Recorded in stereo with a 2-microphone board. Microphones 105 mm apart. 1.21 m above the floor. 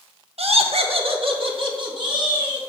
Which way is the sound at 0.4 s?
70° right (ahead or behind).